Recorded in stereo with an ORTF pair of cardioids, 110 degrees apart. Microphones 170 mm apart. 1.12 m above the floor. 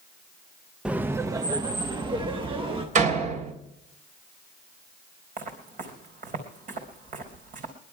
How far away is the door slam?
About 3 m.